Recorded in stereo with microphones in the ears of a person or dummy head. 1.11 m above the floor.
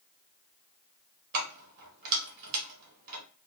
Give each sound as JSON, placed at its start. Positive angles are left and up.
{"t": 1.3, "sound": "keys jangling", "side_deg": -50, "distance_m": 0.8}